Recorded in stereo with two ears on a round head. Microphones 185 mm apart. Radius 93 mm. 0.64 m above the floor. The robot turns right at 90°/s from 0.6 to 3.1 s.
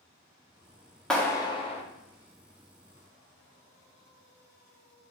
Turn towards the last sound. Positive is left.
turn(degrees=-175)